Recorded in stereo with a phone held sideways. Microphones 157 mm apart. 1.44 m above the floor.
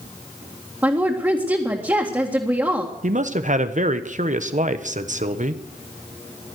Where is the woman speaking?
15° right (ahead or behind), 1.9 m.